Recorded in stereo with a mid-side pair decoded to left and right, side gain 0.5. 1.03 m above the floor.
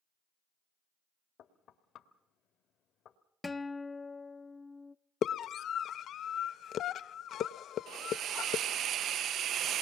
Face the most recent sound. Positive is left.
turn(degrees=-60)